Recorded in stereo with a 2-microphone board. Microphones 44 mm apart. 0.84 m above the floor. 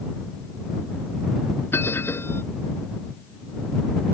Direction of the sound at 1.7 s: 60° left (ahead or behind).